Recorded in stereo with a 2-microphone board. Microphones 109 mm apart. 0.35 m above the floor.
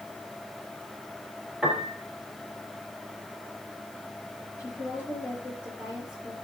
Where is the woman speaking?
15° right (ahead or behind), 7.5 m.